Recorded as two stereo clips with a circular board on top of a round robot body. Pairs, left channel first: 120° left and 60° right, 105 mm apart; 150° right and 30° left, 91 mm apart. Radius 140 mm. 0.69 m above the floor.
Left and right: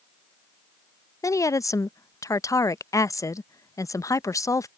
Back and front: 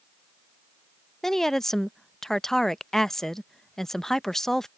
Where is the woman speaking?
130° left.